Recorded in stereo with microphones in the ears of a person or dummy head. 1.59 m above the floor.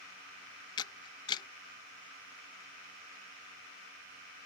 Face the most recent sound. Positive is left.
turn(degrees=25)  # may be behind; listen again after turning